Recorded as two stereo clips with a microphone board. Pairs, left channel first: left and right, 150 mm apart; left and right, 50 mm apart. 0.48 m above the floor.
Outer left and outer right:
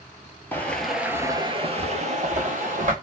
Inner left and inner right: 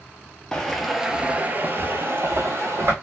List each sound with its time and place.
0.5 s footsteps: 15° left (ahead or behind), 0.6 m; by 2.9 s 55° right (ahead or behind), 1.0 m